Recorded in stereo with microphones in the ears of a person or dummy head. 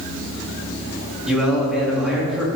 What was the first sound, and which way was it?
A man speaking, centre (ahead or behind).